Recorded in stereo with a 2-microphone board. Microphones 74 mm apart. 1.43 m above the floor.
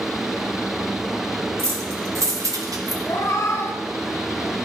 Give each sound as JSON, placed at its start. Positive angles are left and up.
{"t": 1.6, "sound": "keys jangling", "side_deg": -40, "distance_m": 1.9}
{"t": 3.1, "sound": "a cat meowing", "side_deg": 45, "distance_m": 1.2}